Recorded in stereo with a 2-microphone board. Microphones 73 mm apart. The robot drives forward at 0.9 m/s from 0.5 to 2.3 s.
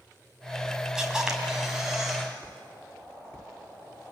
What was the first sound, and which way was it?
A camera shutter, 10° right (ahead or behind).